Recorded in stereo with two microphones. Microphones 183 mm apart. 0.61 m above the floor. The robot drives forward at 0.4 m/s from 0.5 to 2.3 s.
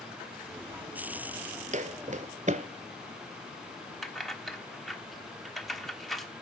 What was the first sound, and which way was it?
Footsteps, 40° right (ahead or behind).